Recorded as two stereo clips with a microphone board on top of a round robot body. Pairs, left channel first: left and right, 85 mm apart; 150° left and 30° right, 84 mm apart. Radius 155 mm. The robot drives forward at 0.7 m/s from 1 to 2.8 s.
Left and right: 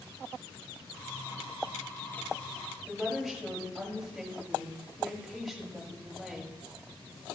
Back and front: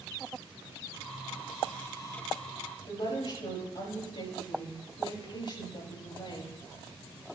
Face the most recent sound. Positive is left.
turn(degrees=180)